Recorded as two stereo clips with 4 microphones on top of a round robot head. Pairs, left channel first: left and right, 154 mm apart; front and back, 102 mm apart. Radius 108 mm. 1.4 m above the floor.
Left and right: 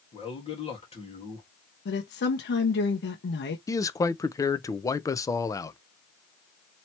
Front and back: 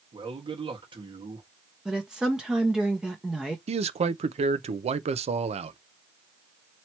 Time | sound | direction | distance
0.1 | a man speaking | 140° left | 1.6 m
1.9 | a woman speaking | 95° left | 0.8 m
3.7 | a man speaking | 160° left | 0.6 m